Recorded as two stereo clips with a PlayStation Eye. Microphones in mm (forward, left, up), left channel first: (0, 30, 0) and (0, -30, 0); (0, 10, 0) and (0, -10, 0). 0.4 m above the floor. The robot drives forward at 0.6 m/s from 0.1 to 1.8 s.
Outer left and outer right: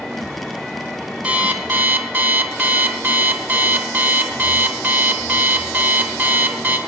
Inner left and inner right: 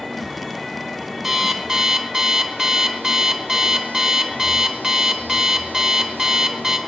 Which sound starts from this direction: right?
An alarm clock, at 1.2 s.